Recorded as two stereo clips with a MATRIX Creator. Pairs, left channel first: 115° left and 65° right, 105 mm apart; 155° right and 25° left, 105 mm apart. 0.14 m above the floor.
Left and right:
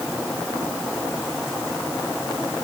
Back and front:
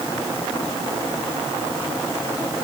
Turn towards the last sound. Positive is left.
No sound to turn to.